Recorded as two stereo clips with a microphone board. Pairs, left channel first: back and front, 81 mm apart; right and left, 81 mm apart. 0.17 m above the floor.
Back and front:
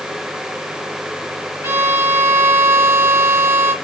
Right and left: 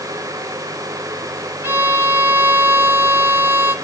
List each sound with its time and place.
1.6 s a violin: 45° left, 1.7 m